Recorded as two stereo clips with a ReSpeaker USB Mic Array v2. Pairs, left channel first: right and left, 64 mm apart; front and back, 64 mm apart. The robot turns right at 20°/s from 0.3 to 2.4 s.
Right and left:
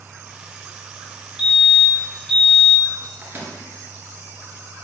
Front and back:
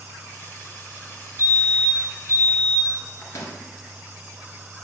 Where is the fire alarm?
Straight behind, 2.5 m; by 2.9 s 160° right, 2.5 m.